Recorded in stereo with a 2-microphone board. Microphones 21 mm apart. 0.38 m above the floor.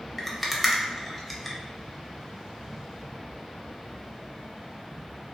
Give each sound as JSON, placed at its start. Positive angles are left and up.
{"t": 0.2, "sound": "a rattle", "side_deg": 5, "distance_m": 0.5}